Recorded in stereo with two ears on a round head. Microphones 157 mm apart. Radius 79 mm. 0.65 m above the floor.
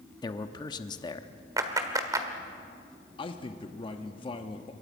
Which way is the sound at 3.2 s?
30° left (ahead or behind).